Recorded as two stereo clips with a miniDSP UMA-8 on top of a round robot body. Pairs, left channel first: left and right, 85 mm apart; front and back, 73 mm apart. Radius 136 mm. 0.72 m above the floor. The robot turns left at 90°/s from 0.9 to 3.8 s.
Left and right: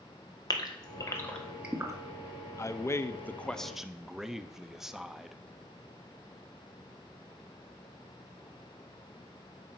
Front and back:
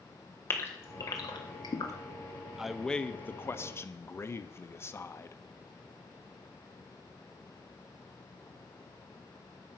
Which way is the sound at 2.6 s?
100° left.